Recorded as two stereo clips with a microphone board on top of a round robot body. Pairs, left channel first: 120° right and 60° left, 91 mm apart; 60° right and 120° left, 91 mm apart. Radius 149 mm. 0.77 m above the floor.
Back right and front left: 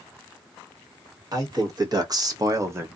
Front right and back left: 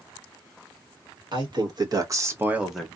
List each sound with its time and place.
1.3 s a man speaking: 100° left, 1.6 m; by 2.9 s 20° left, 0.9 m